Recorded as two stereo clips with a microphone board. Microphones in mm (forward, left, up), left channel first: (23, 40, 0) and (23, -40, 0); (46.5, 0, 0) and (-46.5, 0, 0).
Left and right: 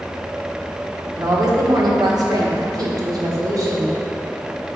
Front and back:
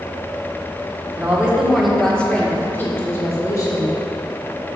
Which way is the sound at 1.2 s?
115° right.